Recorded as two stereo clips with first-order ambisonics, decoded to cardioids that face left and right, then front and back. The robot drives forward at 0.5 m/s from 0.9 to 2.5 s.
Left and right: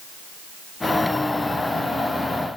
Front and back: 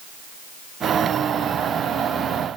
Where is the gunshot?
I don't hear a gunshot.